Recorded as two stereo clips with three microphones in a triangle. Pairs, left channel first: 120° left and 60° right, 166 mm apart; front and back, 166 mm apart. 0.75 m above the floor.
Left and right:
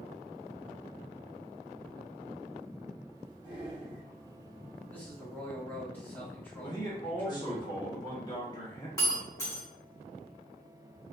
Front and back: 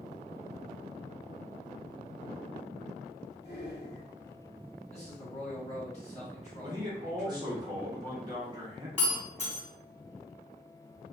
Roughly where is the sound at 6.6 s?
Behind left.